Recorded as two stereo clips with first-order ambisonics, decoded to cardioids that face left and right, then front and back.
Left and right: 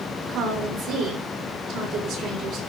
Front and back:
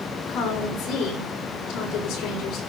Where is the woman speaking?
50° right, 6 m.